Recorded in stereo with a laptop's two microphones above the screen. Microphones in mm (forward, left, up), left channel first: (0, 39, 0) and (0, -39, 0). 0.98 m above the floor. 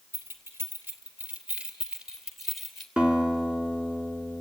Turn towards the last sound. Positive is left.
turn(degrees=-20)  # may be behind; listen again after turning